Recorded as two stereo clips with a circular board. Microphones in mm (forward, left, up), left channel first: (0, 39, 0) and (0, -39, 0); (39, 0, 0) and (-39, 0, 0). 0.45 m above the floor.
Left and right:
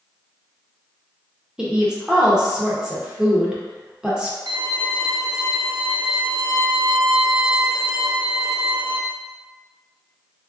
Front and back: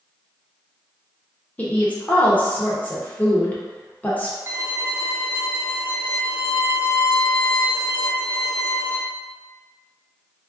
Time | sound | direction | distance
1.6 | a woman speaking | 25° right | 0.8 m
4.5 | a violin | 120° right | 0.7 m